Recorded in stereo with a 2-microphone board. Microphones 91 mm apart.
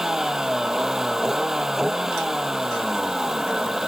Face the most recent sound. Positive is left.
turn(degrees=-5)  # may be behind; listen again after turning